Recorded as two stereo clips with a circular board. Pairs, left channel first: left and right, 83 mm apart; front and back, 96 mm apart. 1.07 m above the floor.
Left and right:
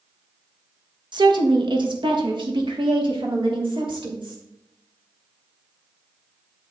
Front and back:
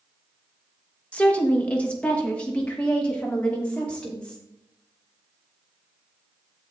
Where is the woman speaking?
75° right, 1.4 m; by 4.4 s 80° right, 3.5 m.